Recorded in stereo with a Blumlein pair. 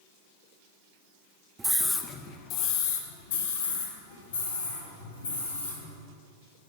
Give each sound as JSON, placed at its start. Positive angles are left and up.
{"t": 1.6, "sound": "a scream", "azimuth_deg": -10, "distance_m": 1.2}